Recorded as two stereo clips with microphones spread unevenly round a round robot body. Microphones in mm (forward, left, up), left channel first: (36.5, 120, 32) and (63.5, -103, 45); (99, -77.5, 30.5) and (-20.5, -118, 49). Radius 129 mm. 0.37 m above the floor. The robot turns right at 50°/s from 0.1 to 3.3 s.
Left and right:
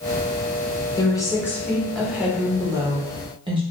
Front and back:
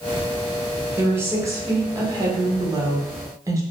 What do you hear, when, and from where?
1.0 s a woman speaking: 125° left, 0.8 m; by 3.6 s 115° right, 0.8 m